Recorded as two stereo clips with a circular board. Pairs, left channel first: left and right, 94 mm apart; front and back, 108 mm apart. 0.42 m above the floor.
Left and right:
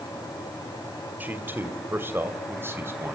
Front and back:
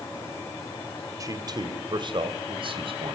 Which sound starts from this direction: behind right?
A man speaking, at 1.2 s.